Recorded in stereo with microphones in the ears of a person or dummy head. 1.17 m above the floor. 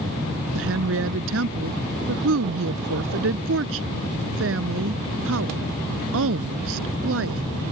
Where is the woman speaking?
80° right.